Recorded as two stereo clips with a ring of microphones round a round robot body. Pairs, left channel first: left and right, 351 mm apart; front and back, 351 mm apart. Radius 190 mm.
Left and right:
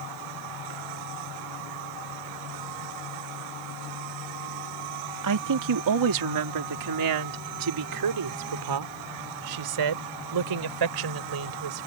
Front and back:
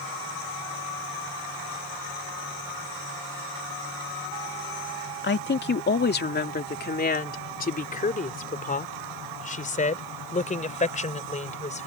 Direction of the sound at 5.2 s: 60° right.